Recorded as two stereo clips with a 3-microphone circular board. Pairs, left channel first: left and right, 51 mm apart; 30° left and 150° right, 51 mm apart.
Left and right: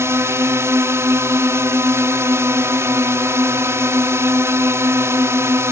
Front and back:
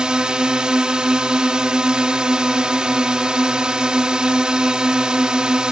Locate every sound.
0.0 s a drone: 80° right